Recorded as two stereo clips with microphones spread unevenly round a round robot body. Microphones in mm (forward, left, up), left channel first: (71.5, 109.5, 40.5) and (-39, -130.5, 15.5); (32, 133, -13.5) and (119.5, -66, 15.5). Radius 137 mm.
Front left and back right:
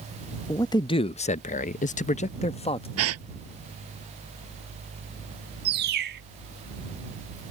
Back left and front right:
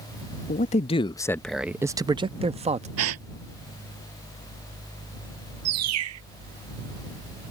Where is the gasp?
80° right.